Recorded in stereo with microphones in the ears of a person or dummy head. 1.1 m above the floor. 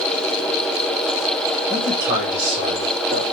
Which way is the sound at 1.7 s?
45° right (ahead or behind).